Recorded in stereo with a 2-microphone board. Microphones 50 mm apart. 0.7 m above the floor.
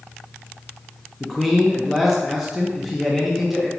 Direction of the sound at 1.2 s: Centre (ahead or behind).